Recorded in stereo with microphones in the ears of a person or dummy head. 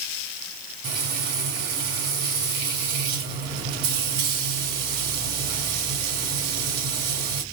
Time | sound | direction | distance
0.8 | frying | 50° right (ahead or behind) | 2.5 m